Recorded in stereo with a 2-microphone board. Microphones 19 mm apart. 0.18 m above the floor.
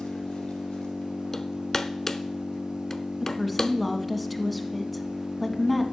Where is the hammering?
25° left (ahead or behind), 0.7 m.